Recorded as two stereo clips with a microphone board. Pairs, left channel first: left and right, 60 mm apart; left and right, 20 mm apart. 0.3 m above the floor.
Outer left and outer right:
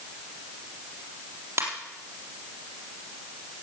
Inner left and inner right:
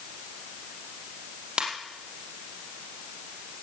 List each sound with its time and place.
1.6 s a ringtone: 50° right (ahead or behind), 4 m